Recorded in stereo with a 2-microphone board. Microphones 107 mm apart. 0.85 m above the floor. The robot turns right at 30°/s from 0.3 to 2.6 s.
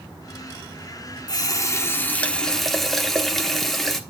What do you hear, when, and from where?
1.3 s a running tap: 140° left, 1.0 m; by 4.0 s 175° left, 1.0 m